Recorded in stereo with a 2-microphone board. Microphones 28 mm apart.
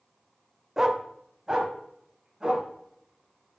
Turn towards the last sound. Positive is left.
turn(degrees=-25)  # may be behind; listen again after turning